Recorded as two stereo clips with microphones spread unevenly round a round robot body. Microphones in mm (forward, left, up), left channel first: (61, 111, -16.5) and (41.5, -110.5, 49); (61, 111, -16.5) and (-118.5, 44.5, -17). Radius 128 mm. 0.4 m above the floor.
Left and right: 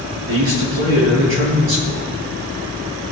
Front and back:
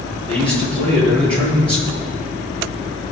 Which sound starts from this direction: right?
A man speaking, at 0.3 s.